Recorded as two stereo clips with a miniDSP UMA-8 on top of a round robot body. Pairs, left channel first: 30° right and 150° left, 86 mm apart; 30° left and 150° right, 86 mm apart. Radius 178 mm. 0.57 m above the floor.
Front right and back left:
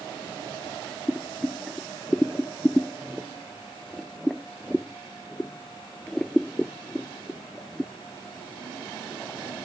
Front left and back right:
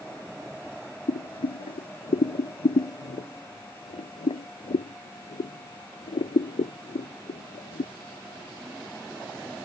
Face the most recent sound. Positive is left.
turn(degrees=55)